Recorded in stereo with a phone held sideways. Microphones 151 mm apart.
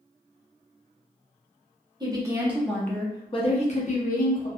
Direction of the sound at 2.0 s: 25° right (ahead or behind).